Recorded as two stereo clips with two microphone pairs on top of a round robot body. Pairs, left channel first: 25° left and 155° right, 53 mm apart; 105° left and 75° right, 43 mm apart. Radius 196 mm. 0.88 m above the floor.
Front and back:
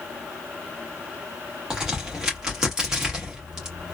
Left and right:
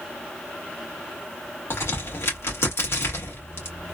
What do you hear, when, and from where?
1.7 s a crack: 125° left, 1.8 m